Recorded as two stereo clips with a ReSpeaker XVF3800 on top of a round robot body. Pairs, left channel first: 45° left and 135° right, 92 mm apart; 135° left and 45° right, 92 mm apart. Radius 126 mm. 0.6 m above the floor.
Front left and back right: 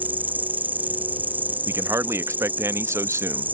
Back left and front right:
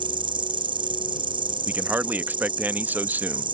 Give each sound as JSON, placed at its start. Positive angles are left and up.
{"t": 0.0, "sound": "an insect", "azimuth_deg": -65}
{"t": 1.7, "sound": "a man speaking", "azimuth_deg": -100}